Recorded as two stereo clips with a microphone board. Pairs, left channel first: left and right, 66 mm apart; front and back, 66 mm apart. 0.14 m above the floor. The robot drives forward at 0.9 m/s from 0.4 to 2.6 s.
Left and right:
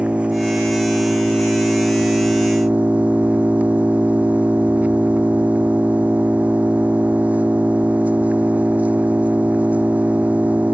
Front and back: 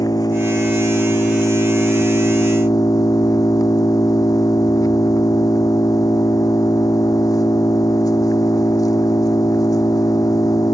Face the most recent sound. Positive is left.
turn(degrees=-20)